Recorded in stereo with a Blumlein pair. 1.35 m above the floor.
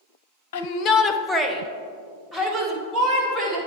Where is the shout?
55° left, 0.6 m; by 3.6 s 25° right, 2.5 m.